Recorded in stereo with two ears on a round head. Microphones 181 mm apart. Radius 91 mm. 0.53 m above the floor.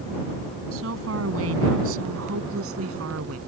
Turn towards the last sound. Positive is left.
turn(degrees=-80)